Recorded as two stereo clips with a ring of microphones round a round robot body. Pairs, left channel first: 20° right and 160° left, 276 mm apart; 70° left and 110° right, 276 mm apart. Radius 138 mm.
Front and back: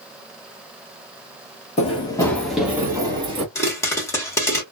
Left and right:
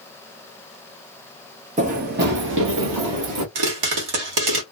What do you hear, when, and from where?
1.8 s running footsteps: 70° right, 1.0 m; by 3.5 s 135° right, 1.4 m
3.5 s a pop: 105° right, 1.2 m